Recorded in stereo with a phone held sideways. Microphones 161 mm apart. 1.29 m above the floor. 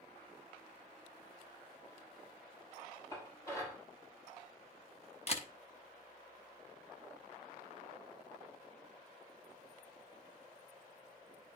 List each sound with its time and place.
3.1 s dishes clattering: 20° left (ahead or behind), 5.5 m
5.3 s a camera shutter: 40° left (ahead or behind), 0.9 m